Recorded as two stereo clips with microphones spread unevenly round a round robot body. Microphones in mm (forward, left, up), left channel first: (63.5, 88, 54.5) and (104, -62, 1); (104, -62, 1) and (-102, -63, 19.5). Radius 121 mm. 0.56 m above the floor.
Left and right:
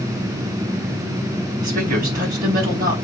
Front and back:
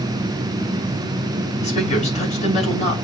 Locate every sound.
1.6 s a woman speaking: 55° right, 4 m